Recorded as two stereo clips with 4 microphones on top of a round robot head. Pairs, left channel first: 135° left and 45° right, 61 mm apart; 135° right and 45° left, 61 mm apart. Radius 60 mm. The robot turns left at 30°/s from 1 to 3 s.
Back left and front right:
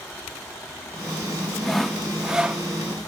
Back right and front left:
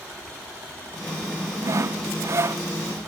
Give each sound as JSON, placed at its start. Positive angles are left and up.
{"t": 1.6, "sound": "sawing", "azimuth_deg": 50}